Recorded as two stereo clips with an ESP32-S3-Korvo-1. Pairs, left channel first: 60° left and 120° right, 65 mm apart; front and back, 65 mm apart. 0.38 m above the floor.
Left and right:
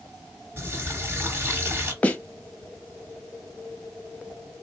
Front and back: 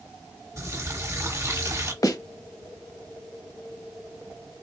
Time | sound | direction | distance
0.6 | a running tap | 160° right | 1.4 m
2.0 | a snare drum | straight ahead | 0.7 m